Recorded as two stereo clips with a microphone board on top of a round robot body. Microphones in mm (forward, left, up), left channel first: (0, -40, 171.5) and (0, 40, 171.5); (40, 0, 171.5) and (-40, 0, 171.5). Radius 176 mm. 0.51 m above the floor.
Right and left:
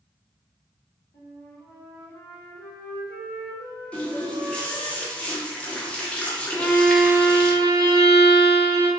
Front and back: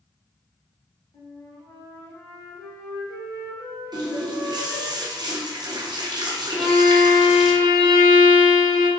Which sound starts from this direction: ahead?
A violin, at 6.5 s.